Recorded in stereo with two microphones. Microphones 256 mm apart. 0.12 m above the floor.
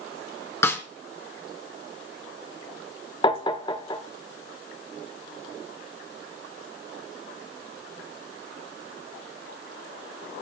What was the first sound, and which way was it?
A snare drum, 10° left (ahead or behind).